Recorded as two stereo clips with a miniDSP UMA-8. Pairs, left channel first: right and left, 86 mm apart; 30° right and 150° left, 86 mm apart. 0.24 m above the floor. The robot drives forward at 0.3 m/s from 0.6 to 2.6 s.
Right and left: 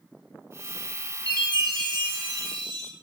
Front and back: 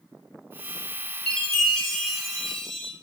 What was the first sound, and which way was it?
A chime, 50° left.